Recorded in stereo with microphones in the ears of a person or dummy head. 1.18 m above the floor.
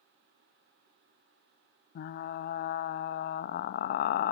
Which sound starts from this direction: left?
Frying, at 1.9 s.